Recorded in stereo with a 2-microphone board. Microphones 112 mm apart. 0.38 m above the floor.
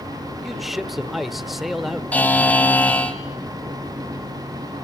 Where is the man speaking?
Centre (ahead or behind), 0.9 m.